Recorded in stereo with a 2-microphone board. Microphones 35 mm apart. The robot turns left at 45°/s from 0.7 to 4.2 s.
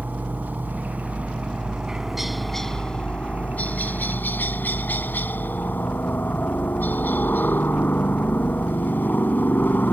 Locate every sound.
0.0 s a helicopter: 105° right; by 9.9 s 95° left